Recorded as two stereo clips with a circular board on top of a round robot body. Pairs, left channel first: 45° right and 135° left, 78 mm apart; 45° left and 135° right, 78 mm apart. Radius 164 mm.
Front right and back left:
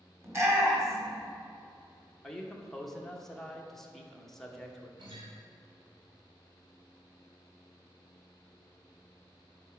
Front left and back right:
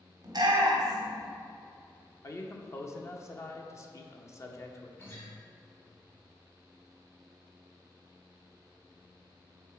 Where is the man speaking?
35° left, 1.2 m.